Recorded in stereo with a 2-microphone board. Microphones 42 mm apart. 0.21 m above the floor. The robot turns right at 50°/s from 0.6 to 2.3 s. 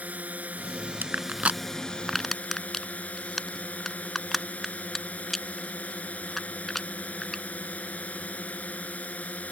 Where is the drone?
45° right; by 9.5 s 40° left.